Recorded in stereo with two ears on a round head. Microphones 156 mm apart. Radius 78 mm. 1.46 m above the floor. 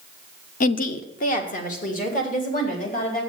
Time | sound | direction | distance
0.6 | a woman speaking | 50° left (ahead or behind) | 0.7 m